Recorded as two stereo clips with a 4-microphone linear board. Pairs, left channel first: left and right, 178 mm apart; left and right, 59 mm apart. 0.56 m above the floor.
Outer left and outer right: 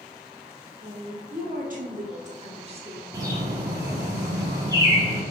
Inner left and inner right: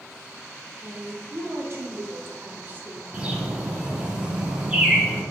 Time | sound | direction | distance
0.8 | a woman speaking | 55° right (ahead or behind) | 1.9 m
3.1 | a bird | 20° right (ahead or behind) | 1.4 m